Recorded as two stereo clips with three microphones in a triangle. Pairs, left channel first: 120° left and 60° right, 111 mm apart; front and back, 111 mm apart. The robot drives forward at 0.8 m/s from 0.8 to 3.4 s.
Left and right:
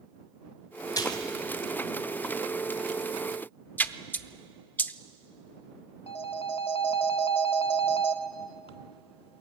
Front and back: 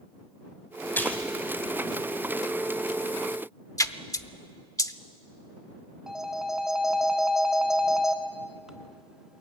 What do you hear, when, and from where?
0.9 s a splash: 70° left, 2.5 m; by 1.3 s 80° left, 2.5 m
3.8 s a splash: 50° left, 0.7 m
6.1 s a phone ringing: 95° left, 1.4 m